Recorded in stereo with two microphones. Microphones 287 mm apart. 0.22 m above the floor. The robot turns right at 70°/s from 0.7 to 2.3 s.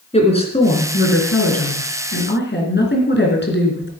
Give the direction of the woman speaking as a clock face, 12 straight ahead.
11 o'clock.